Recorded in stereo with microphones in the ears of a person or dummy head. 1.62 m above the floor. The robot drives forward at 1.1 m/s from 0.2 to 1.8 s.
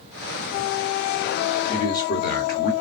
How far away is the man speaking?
About 1.0 m.